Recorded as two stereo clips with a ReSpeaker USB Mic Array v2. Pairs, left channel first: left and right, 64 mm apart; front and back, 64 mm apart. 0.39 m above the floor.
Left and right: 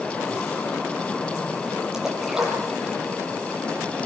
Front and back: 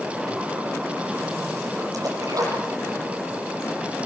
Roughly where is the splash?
Behind.